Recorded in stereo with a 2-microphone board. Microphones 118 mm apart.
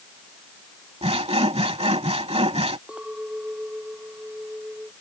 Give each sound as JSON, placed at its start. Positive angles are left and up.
{"t": 1.0, "sound": "sawing", "side_deg": -60}
{"t": 2.9, "sound": "a clink", "side_deg": -10}